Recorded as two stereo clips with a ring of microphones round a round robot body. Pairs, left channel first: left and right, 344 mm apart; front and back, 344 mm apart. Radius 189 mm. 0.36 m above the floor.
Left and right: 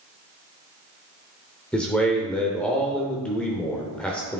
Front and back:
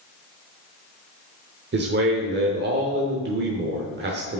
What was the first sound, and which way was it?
A man speaking, 175° left.